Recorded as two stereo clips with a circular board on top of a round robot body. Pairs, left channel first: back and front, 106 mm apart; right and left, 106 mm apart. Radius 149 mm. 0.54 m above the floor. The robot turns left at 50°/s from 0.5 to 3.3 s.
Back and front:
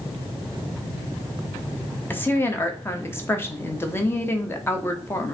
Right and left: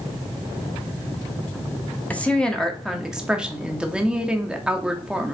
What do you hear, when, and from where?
2.1 s a woman speaking: 140° right, 1.0 m; by 5.3 s 160° left, 1.0 m